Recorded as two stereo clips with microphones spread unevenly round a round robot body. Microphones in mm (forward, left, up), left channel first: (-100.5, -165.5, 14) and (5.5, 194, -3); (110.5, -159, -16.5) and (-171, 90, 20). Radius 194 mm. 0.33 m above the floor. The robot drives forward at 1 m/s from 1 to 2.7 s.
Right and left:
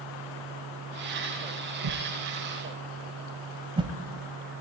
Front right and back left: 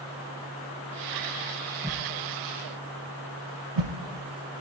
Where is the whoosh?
50° left, 0.6 m; by 3.9 s 150° left, 0.8 m.